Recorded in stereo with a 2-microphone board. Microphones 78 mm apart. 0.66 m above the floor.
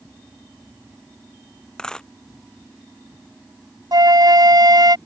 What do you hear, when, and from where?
1.8 s a dropped coin: 10° left (ahead or behind)
3.9 s a flute: 60° right (ahead or behind)